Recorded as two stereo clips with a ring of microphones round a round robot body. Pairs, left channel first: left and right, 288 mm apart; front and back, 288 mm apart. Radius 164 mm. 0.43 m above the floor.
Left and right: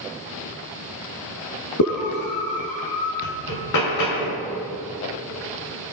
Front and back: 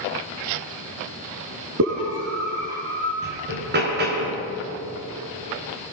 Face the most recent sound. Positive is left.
turn(degrees=120)